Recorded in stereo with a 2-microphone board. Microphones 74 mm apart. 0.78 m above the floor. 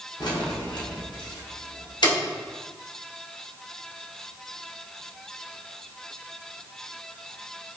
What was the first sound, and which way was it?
Keys jangling, 60° left (ahead or behind).